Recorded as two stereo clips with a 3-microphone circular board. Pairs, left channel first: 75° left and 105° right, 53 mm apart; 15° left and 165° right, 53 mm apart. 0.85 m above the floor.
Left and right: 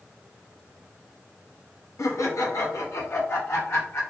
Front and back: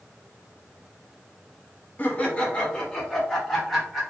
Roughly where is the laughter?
Left.